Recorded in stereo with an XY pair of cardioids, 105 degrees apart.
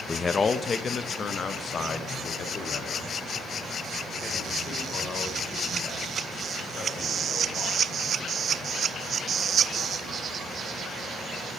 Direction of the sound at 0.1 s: 25° left.